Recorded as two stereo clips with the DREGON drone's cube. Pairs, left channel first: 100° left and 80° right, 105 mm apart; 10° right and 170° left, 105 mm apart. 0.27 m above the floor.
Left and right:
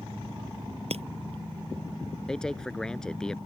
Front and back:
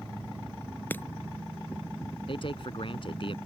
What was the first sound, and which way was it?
Breaking glass, 85° right.